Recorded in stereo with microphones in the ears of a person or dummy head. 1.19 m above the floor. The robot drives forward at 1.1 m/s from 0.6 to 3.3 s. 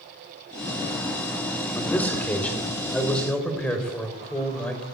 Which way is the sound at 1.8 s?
15° left (ahead or behind).